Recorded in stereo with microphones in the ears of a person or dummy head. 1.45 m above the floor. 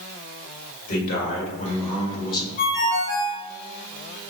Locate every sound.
0.9 s a man speaking: 50° left (ahead or behind), 1.7 m; by 2.5 s 25° left (ahead or behind), 1.1 m
2.6 s a ringtone: 40° left (ahead or behind), 1.4 m